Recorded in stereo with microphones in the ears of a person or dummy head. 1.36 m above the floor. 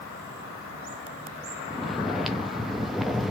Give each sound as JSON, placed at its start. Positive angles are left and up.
{"t": 1.7, "sound": "snoring", "side_deg": 0, "distance_m": 0.5}